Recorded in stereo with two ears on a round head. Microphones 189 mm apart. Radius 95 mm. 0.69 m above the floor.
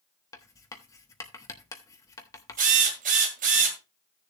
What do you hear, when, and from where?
0.3 s writing: 15° left (ahead or behind), 1.0 m
2.6 s a drill: 40° right (ahead or behind), 2.0 m